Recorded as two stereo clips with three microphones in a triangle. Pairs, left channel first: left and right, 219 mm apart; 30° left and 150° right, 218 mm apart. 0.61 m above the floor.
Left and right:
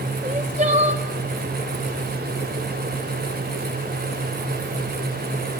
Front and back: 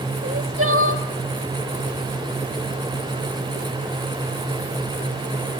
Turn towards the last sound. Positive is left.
turn(degrees=-150)